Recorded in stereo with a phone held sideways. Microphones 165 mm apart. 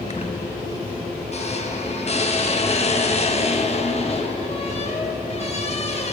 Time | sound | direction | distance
0.1 | a squeak | 40° left (ahead or behind) | 0.6 m